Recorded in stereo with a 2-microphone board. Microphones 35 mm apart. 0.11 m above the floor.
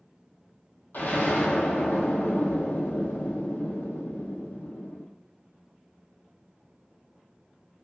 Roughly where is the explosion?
Left.